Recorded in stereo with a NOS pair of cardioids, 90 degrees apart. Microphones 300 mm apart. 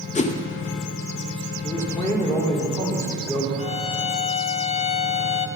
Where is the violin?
20° left, 0.5 m.